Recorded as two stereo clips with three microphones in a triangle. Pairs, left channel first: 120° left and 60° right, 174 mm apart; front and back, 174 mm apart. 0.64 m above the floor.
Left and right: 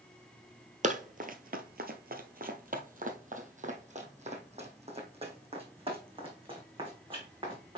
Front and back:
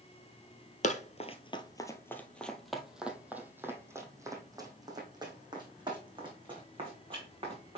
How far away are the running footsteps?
About 1.0 m.